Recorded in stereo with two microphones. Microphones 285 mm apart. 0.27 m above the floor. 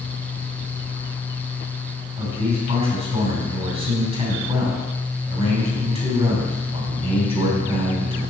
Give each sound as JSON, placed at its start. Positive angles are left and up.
{"t": 2.2, "sound": "a man speaking", "side_deg": -20, "distance_m": 2.5}